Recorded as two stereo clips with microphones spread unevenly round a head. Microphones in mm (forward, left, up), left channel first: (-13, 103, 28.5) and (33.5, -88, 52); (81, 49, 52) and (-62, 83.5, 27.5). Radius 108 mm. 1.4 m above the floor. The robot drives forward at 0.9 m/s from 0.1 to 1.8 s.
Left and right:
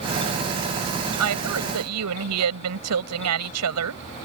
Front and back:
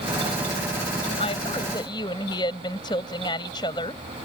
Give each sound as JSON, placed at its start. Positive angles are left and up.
{"t": 1.2, "sound": "a woman speaking", "azimuth_deg": -80}